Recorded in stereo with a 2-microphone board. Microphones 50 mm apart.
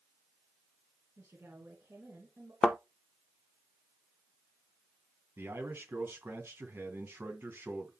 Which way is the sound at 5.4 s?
55° right (ahead or behind).